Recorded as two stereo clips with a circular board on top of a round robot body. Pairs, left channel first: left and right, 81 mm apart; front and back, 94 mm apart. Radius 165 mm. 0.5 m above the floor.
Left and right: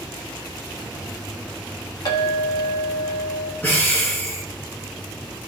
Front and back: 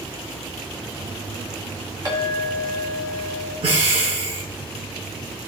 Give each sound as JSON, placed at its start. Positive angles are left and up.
{"t": 2.0, "sound": "a clink", "azimuth_deg": 130, "distance_m": 2.5}
{"t": 3.6, "sound": "breathing", "azimuth_deg": 160, "distance_m": 2.5}